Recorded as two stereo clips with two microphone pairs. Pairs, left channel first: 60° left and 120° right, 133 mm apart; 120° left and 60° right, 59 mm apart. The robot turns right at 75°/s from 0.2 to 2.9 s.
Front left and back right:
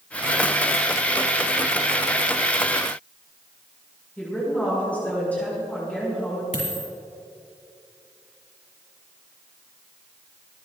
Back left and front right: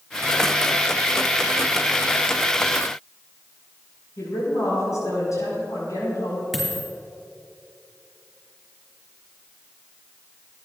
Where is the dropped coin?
30° left, 4.5 m.